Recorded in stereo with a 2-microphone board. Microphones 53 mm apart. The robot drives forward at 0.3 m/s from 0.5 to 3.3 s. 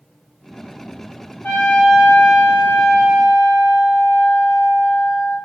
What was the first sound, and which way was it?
A trumpet, 35° left (ahead or behind).